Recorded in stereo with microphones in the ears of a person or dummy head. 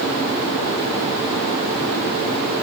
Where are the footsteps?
No footsteps in this recording.